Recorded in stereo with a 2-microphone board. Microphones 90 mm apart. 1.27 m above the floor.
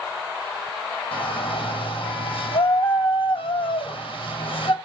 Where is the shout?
75° left (ahead or behind), 6.5 m.